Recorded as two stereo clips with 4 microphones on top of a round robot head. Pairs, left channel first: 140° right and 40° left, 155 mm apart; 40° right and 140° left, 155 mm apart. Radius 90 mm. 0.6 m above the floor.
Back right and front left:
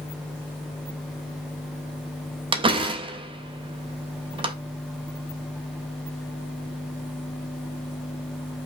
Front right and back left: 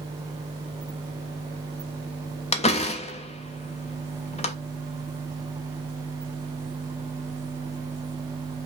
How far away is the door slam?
About 0.9 m.